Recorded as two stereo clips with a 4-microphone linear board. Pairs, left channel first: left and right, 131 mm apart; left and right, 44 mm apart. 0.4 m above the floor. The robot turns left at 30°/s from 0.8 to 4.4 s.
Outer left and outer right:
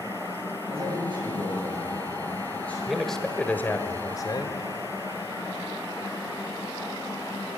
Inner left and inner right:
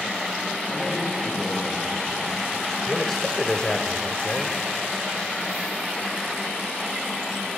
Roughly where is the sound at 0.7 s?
Behind right.